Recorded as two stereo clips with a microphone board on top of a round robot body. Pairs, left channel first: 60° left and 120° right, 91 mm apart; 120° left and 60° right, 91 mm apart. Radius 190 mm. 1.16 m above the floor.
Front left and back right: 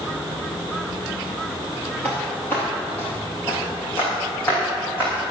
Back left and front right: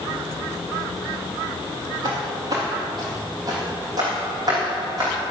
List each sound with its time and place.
2.0 s footsteps: 15° right, 1.6 m; by 5.1 s 10° right, 6 m